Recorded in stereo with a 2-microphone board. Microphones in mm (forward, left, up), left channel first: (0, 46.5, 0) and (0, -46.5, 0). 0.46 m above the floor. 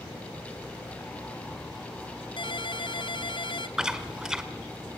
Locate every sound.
2.4 s a ringtone: 60° left (ahead or behind), 0.8 m
3.8 s chewing: 5° right (ahead or behind), 1.2 m